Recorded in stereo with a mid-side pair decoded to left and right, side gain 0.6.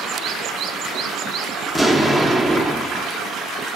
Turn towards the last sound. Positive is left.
turn(degrees=0)